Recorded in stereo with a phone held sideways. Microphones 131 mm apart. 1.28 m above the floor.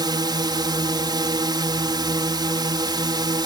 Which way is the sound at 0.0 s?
35° right (ahead or behind).